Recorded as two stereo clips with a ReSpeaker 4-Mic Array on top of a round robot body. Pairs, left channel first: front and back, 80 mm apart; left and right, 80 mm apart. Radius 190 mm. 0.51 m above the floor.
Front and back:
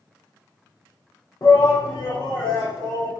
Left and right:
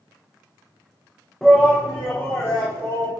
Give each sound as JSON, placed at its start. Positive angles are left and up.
{"t": 1.4, "sound": "a shout", "azimuth_deg": 5, "distance_m": 0.9}